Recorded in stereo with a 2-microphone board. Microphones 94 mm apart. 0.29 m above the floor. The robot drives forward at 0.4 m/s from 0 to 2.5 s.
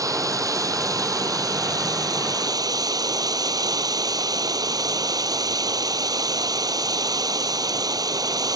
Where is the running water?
35° right (ahead or behind); by 8.6 s 40° right (ahead or behind).